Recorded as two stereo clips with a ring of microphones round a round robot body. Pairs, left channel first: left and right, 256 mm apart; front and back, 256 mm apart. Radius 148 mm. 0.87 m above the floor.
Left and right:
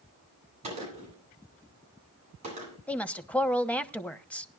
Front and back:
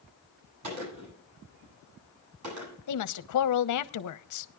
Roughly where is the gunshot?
Behind.